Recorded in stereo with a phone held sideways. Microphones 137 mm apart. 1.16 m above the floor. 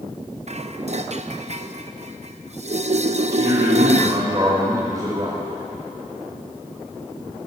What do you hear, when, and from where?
0.5 s dishes clattering: 55° right (ahead or behind), 0.6 m
3.3 s a man speaking: 25° right (ahead or behind), 5.5 m